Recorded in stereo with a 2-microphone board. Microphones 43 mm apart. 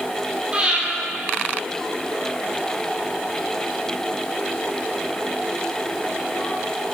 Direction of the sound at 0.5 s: 25° right (ahead or behind).